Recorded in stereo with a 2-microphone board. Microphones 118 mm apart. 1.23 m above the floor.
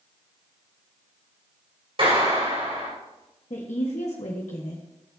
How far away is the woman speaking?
About 1.3 m.